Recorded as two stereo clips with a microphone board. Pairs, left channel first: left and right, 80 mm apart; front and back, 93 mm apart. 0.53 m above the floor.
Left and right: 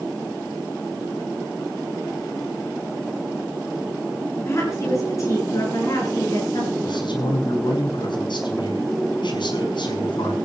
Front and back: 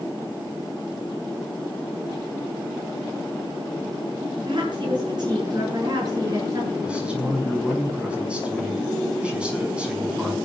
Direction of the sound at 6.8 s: 100° left.